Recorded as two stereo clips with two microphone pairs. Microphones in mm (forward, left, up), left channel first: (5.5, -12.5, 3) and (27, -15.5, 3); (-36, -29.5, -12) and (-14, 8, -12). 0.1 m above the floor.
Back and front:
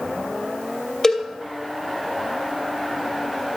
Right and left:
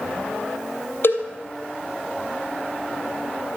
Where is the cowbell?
125° right, 2.5 m.